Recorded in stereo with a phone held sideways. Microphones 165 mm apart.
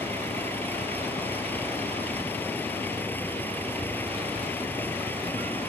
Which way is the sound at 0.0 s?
15° left (ahead or behind).